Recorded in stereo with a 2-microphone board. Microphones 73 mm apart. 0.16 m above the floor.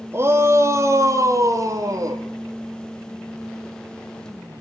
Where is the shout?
35° right (ahead or behind), 3 m; by 2.2 s 50° right (ahead or behind), 4.5 m.